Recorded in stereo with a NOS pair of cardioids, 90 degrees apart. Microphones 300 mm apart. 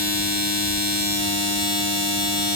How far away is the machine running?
About 0.7 m.